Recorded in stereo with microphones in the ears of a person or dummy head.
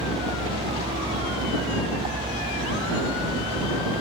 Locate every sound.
0.0 s a vehicle: 25° right (ahead or behind)